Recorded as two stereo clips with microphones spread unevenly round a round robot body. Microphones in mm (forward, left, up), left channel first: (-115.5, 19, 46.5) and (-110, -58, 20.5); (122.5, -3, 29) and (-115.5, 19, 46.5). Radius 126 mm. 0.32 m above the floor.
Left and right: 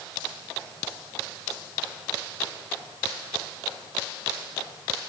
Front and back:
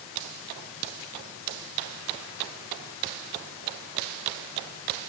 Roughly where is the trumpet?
No trumpet in this recording.